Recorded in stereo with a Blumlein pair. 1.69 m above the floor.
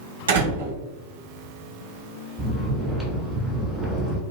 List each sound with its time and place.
0.3 s a door slam: 65° right, 1.4 m
2.4 s snoring: 10° right, 1.6 m